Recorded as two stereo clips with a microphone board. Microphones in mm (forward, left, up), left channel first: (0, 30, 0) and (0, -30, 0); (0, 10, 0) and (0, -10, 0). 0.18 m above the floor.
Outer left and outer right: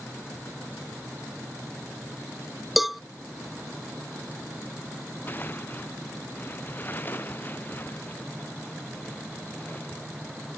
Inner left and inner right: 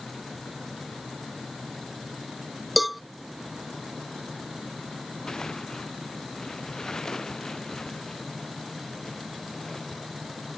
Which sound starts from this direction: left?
Tearing paper, at 5.3 s.